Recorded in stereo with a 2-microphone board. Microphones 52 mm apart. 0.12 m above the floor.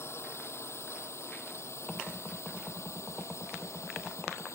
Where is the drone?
60° left (ahead or behind); by 4.5 s 65° left (ahead or behind).